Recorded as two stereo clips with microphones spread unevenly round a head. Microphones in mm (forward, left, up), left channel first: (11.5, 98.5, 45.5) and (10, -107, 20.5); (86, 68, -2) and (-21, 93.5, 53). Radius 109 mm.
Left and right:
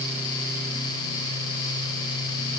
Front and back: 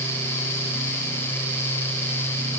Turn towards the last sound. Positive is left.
No sound to turn to.